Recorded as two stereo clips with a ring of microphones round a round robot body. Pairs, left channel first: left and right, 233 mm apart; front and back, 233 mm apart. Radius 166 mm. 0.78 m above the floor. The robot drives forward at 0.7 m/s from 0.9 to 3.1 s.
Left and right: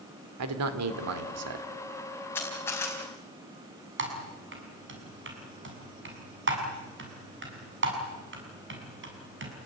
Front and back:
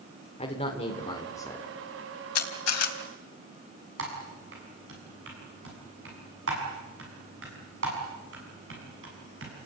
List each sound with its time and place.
0.4 s a man speaking: 70° right, 2.5 m; by 1.6 s 85° right, 2.5 m
2.4 s a camera shutter: 5° left, 3 m
4.0 s typing on a keyboard: 125° right, 7 m